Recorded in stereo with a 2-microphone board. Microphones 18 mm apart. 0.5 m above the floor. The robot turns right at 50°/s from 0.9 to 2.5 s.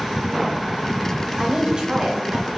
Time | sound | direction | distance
1.4 | a woman speaking | 145° right | 2.5 m